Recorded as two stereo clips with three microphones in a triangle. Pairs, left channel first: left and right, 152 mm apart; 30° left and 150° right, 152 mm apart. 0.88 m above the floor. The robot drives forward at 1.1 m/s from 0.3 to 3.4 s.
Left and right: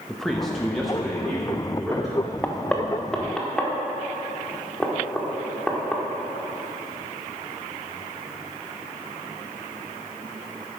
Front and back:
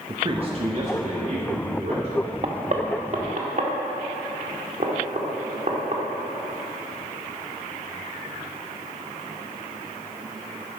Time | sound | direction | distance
0.1 | a man speaking | 175° left | 0.9 m
2.4 | knocking | 165° left | 0.7 m